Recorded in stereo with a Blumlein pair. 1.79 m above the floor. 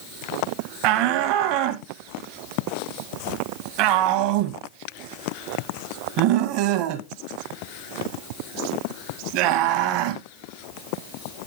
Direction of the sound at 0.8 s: 45° right.